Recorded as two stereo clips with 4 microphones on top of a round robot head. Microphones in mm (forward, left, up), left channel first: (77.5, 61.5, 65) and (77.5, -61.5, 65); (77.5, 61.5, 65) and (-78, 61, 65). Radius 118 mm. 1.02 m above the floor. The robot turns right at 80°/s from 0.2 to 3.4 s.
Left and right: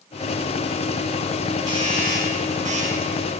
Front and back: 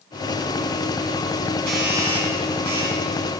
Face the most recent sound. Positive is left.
turn(degrees=-15)